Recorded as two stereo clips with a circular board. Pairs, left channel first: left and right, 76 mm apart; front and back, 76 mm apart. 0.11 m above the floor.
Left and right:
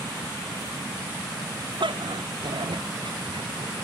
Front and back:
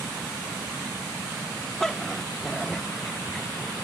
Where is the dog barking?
85° right.